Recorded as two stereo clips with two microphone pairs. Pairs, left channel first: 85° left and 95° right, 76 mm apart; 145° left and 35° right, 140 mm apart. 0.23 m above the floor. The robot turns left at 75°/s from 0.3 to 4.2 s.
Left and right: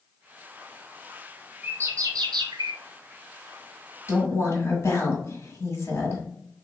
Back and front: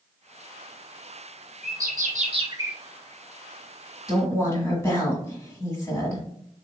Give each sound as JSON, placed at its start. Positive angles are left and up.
{"t": 1.6, "sound": "a bird", "azimuth_deg": -25, "distance_m": 0.7}
{"t": 4.1, "sound": "a woman speaking", "azimuth_deg": 100, "distance_m": 1.8}